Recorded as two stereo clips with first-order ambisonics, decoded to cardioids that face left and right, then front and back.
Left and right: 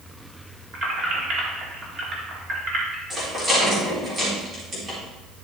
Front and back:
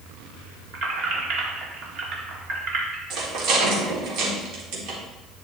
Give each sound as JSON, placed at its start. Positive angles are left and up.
{"t": 0.7, "sound": "keys jangling", "azimuth_deg": -145, "distance_m": 2.0}
{"t": 3.1, "sound": "a rattle", "azimuth_deg": -155, "distance_m": 3.5}